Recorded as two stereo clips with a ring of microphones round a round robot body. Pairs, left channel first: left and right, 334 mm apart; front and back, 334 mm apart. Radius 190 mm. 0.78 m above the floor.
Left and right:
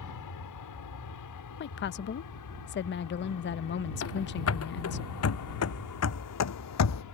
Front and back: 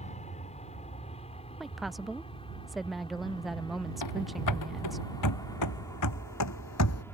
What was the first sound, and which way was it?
An aircraft, 70° left.